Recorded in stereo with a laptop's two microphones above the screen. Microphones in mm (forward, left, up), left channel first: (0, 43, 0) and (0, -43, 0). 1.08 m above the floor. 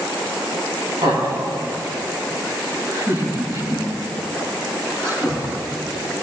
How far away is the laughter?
About 6.5 m.